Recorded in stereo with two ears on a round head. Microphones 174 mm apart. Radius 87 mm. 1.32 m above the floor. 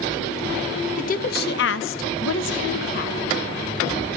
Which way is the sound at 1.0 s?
40° left (ahead or behind).